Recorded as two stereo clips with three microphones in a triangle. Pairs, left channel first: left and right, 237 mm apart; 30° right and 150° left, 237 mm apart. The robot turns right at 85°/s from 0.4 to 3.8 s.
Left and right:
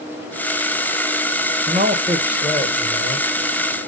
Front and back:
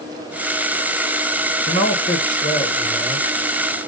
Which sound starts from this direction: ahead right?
A man speaking, at 1.7 s.